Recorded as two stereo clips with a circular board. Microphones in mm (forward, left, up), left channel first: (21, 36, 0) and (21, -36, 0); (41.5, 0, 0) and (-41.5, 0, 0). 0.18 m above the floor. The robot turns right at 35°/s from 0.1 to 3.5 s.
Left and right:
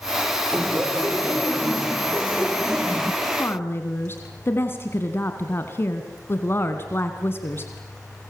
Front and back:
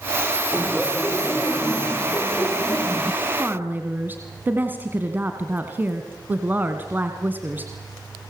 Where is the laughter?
90° right, 1.1 m; by 3.1 s 5° left, 1.1 m.